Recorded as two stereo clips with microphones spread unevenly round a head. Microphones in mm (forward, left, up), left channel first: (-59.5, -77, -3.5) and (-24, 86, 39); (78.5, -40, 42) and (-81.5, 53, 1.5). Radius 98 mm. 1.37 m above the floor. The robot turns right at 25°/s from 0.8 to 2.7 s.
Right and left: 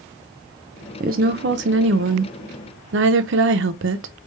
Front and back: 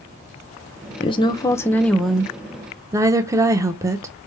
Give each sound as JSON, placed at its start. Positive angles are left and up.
{"t": 1.0, "sound": "a woman speaking", "azimuth_deg": 30, "distance_m": 0.8}